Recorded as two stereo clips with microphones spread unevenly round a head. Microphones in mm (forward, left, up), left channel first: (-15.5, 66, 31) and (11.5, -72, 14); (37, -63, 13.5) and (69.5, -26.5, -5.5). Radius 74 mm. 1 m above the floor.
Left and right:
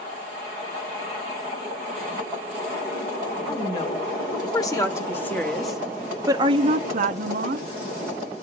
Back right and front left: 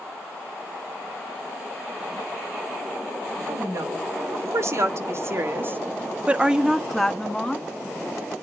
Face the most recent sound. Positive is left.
turn(degrees=-60)